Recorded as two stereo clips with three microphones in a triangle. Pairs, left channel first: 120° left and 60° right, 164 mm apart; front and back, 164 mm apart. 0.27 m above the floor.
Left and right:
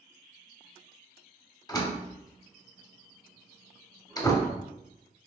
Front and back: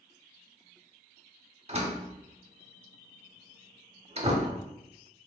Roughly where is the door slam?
Behind.